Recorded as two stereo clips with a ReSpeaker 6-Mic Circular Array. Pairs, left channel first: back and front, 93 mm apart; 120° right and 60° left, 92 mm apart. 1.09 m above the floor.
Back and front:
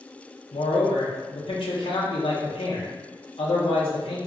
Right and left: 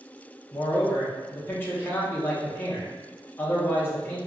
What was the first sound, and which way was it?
A man speaking, 170° left.